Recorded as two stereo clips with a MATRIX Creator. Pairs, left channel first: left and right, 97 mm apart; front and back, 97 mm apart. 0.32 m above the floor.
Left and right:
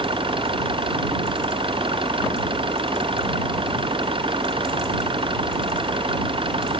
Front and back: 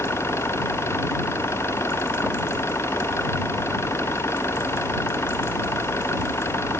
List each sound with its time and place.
0.0 s an engine running: 65° right